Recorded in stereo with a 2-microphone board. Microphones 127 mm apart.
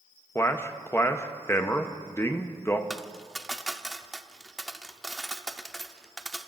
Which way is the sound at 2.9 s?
Centre (ahead or behind).